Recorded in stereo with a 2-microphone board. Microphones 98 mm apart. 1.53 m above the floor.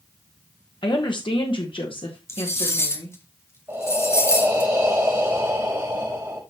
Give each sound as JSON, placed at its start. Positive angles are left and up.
{"t": 0.8, "sound": "a woman speaking", "side_deg": 55, "distance_m": 1.3}
{"t": 2.3, "sound": "cutlery clinking", "side_deg": 30, "distance_m": 1.1}
{"t": 3.7, "sound": "breathing", "side_deg": -25, "distance_m": 5.5}